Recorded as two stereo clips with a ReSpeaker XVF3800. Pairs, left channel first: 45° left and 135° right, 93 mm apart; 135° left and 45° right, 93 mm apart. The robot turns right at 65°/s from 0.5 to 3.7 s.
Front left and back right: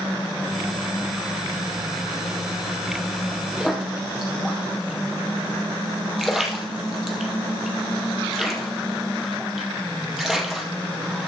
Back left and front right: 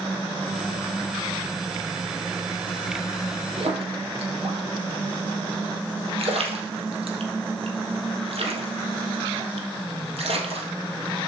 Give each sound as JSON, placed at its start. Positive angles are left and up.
{"t": 3.6, "sound": "a splash", "azimuth_deg": -55, "distance_m": 3.0}